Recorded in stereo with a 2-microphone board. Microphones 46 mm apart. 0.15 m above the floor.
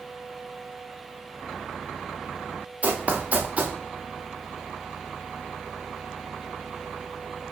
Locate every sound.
2.8 s running footsteps: 35° right (ahead or behind), 1.4 m